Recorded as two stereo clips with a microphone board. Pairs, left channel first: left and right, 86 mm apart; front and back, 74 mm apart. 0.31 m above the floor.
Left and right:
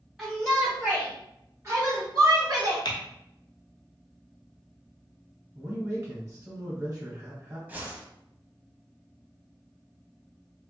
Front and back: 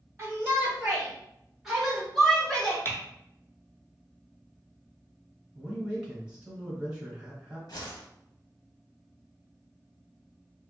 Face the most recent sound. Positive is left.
turn(degrees=-20)